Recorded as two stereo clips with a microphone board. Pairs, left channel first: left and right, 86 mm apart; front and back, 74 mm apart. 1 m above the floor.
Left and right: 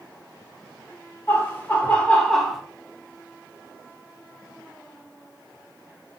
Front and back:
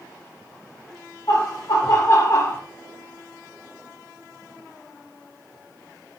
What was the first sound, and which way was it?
Laughter, 30° left.